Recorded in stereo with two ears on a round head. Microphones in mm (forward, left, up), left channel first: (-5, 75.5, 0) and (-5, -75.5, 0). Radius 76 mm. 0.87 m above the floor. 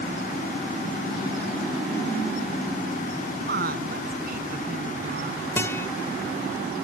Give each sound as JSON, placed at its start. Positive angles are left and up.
{"t": 3.4, "sound": "a woman speaking", "side_deg": -55}
{"t": 5.6, "sound": "a guitar", "side_deg": 15}